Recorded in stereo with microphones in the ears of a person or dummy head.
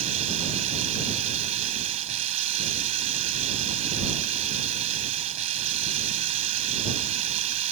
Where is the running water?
45° right (ahead or behind).